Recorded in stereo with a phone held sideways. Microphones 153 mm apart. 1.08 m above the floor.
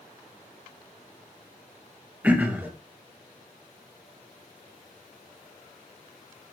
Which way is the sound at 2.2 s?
10° right (ahead or behind).